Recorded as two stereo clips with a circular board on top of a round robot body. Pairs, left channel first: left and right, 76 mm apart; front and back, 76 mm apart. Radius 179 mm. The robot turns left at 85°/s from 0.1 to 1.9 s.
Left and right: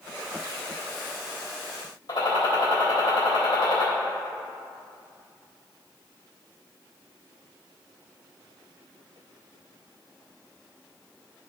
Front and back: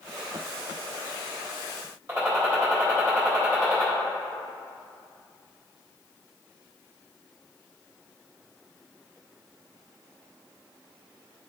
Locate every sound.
2.1 s a gunshot: 125° left, 3 m